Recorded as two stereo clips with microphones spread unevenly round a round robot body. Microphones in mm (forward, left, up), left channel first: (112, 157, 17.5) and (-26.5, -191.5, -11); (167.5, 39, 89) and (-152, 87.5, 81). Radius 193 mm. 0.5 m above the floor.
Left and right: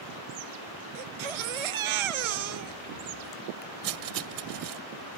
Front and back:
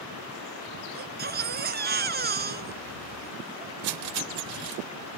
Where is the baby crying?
125° right.